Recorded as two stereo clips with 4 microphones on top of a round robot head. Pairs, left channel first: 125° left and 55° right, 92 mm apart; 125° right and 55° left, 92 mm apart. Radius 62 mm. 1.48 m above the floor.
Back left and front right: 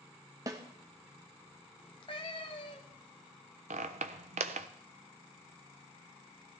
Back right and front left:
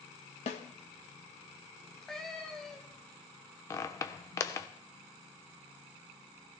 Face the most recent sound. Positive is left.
turn(degrees=-70)